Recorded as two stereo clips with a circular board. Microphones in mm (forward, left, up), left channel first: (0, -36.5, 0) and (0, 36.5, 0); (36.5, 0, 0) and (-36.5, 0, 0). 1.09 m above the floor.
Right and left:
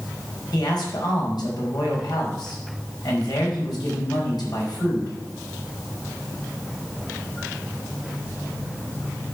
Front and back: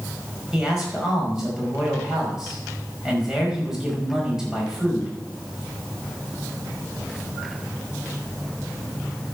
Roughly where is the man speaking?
Right.